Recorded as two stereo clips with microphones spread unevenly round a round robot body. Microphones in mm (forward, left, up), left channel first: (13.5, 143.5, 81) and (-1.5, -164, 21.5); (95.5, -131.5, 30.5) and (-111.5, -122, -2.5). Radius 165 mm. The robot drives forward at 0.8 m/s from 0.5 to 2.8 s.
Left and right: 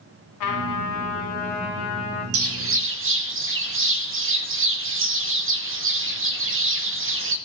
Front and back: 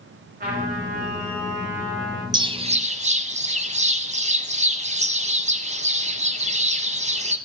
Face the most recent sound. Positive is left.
turn(degrees=-130)